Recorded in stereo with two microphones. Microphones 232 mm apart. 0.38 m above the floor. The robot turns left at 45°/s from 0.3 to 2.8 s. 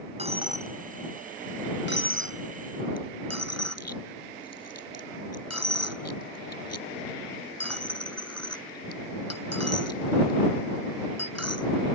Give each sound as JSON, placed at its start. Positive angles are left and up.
{"t": 0.2, "sound": "a dropped coin", "side_deg": -25}